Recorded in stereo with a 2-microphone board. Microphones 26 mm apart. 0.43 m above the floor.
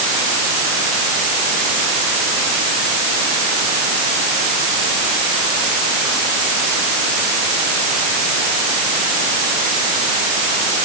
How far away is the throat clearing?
No throat clearing in this recording.